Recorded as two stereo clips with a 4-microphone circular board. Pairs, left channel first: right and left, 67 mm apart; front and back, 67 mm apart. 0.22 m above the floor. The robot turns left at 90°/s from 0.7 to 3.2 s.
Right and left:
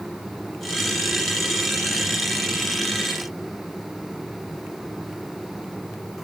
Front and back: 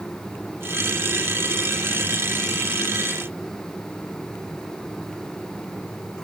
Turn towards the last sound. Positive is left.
No sound to turn to.